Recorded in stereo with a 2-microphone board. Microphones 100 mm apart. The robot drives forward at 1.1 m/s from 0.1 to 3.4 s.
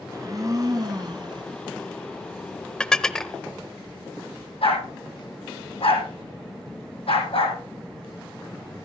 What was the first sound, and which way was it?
A blender, 35° right (ahead or behind).